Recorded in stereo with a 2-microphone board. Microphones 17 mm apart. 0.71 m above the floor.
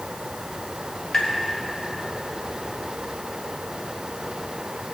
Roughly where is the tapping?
Left.